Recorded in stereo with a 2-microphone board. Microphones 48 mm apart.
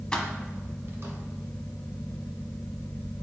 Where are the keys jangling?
20° left (ahead or behind), 1.0 m; by 1.1 s 55° right (ahead or behind), 1.5 m.